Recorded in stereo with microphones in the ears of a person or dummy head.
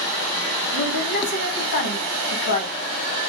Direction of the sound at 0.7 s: 55° left (ahead or behind).